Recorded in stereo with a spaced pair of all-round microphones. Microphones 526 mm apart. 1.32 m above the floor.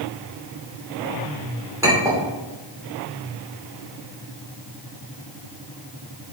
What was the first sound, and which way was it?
A clink, 5° right (ahead or behind).